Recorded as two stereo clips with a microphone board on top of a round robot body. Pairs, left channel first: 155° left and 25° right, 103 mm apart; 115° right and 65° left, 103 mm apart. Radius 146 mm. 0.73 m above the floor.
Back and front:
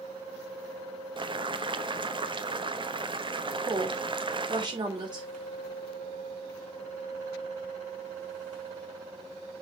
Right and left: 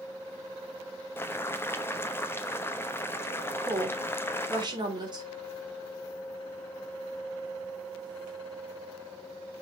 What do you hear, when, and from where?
1.2 s boiling: 45° right, 1.2 m
3.7 s a woman speaking: 20° left, 3.5 m